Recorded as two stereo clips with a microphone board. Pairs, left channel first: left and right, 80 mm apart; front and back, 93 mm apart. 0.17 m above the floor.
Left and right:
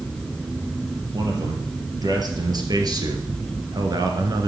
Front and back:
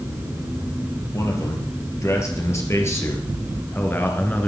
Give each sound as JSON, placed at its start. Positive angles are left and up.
{"t": 1.1, "sound": "a man speaking", "azimuth_deg": -55, "distance_m": 3.5}